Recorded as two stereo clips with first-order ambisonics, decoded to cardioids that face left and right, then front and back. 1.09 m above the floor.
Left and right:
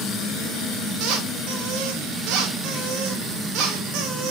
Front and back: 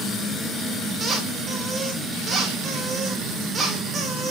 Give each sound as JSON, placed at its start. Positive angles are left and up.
{"t": 1.0, "sound": "a squeak", "azimuth_deg": -110, "distance_m": 2.5}